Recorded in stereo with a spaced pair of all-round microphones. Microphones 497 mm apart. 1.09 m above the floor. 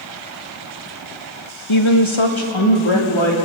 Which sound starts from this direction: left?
A woman speaking, at 1.7 s.